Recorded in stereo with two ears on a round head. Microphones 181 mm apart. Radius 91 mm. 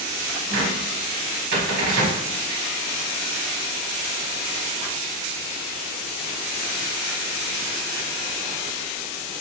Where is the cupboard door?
60° right (ahead or behind), 1.5 m.